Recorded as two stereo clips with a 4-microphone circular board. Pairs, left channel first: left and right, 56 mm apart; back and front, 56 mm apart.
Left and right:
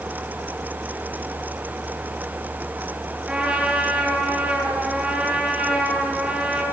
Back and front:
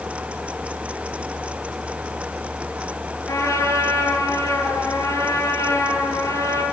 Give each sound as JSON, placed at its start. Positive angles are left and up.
{"t": 3.3, "sound": "a trumpet", "azimuth_deg": -170, "distance_m": 8.5}